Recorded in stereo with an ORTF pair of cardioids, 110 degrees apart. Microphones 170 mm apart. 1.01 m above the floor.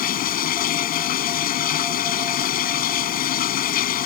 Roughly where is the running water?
Ahead left.